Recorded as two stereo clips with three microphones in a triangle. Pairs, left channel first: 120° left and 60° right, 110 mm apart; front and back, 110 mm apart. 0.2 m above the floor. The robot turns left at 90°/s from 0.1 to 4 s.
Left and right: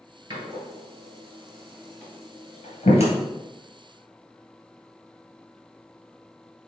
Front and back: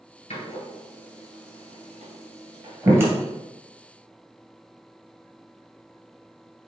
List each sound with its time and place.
0.3 s a door slam: 5° right, 2.5 m; by 3.1 s 100° left, 2.5 m